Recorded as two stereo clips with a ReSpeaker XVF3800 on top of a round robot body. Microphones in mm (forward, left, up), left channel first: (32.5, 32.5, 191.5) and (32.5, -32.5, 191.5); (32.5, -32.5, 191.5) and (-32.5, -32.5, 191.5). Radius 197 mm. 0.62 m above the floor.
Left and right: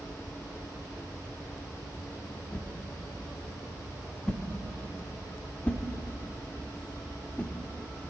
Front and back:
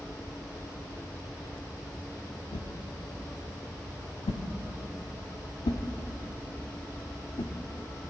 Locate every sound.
2.5 s a whoosh: 15° left, 0.6 m